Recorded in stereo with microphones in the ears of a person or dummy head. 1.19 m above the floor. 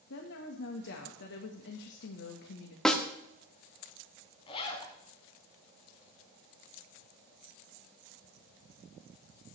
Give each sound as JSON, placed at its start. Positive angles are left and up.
{"t": 0.1, "sound": "a woman speaking", "side_deg": 60, "distance_m": 1.5}
{"t": 2.9, "sound": "a snare drum", "side_deg": 10, "distance_m": 1.2}
{"t": 4.5, "sound": "a zipper", "side_deg": 40, "distance_m": 1.9}